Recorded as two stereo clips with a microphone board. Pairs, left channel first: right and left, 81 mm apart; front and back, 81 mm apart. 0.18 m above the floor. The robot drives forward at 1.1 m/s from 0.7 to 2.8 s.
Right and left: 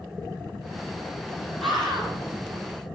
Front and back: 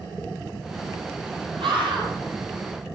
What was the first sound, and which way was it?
A scream, 175° right.